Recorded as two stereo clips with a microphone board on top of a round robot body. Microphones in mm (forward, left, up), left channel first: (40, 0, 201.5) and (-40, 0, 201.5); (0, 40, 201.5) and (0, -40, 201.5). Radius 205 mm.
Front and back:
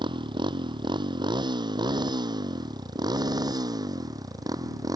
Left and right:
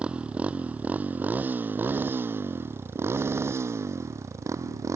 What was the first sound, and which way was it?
A motorcycle, 165° right.